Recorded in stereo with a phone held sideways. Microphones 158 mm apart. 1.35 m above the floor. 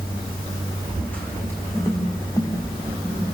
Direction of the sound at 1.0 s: 5° left (ahead or behind).